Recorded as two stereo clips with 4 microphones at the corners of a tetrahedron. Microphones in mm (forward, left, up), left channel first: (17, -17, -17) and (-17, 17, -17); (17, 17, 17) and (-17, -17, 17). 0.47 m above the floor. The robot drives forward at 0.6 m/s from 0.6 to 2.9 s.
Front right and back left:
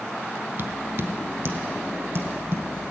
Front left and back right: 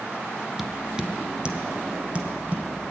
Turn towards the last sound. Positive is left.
turn(degrees=170)